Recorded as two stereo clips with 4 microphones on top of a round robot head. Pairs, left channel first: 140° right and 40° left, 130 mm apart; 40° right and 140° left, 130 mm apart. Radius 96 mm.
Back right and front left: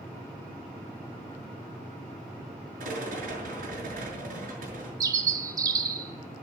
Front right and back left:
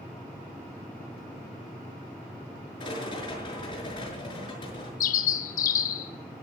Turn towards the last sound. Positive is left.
turn(degrees=-25)